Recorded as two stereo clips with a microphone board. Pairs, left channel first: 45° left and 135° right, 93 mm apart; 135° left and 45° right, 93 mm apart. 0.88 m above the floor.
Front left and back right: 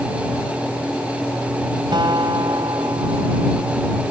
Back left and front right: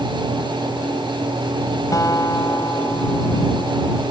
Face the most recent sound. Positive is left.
turn(degrees=-175)